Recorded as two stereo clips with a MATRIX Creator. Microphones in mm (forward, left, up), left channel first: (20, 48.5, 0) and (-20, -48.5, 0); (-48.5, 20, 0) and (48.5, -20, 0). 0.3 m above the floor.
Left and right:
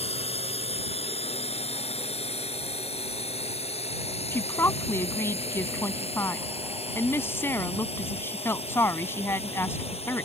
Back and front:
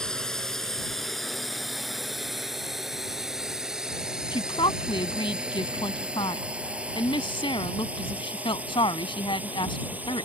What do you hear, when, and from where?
0.0 s a drone: 75° left; by 10.3 s 50° left
4.3 s a woman speaking: 135° left